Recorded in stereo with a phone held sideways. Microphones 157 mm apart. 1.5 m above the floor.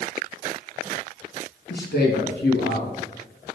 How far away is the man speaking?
About 2 m.